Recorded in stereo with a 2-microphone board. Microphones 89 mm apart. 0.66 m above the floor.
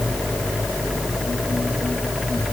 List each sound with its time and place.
Only background noise.